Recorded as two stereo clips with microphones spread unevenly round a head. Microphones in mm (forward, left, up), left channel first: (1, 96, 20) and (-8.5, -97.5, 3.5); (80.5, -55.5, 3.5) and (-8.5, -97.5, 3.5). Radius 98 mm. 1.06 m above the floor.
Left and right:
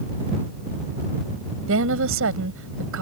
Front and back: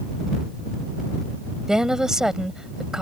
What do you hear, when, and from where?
1.7 s a woman speaking: 70° right